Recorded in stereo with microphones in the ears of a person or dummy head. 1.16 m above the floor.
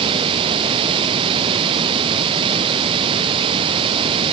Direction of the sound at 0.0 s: 30° right (ahead or behind).